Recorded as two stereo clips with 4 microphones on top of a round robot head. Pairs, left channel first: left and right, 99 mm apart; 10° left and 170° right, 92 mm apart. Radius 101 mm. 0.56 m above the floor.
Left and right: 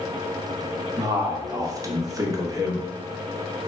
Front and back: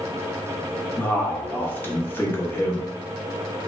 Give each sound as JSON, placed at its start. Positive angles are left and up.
{"t": 1.0, "sound": "a man speaking", "azimuth_deg": -50, "distance_m": 0.8}